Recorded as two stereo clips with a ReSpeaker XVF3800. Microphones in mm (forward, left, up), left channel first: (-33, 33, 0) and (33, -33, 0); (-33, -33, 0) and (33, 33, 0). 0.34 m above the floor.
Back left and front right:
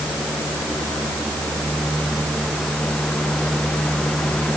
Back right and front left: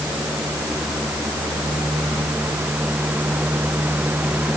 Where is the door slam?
I don't hear a door slam.